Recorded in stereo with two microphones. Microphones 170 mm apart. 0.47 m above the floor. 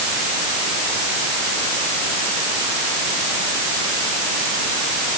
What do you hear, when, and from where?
Only background noise.